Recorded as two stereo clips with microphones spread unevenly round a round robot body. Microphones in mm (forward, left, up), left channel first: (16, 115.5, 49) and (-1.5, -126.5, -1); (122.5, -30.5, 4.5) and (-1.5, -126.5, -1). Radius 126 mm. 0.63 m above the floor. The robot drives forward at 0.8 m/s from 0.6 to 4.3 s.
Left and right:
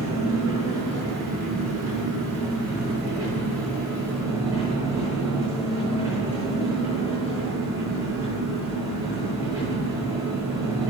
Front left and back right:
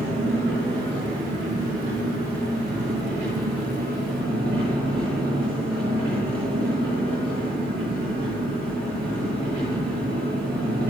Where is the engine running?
175° right, 9.5 m.